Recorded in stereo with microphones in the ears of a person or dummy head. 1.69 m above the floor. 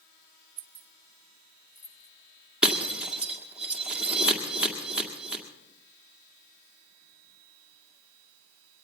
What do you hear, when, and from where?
0.6 s keys jangling: 40° right (ahead or behind), 1.1 m; by 2.1 s 5° left (ahead or behind), 1.6 m
2.6 s breaking glass: 10° right (ahead or behind), 1.9 m